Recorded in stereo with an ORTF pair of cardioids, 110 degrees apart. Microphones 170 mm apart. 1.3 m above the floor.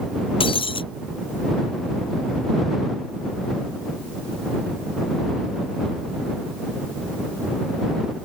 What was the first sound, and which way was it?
Breaking glass, 30° left.